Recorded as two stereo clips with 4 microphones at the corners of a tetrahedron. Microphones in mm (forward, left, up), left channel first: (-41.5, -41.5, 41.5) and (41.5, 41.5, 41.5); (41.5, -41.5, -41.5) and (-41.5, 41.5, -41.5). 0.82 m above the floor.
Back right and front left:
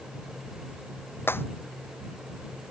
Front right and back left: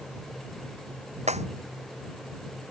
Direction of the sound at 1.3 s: 155° left.